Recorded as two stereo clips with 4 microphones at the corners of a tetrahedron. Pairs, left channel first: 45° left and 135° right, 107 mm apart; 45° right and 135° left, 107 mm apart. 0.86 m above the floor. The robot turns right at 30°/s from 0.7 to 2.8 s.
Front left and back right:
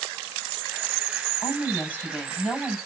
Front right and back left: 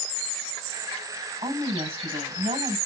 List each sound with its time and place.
1.4 s a woman speaking: 100° left, 5 m; by 2.8 s 145° left, 5 m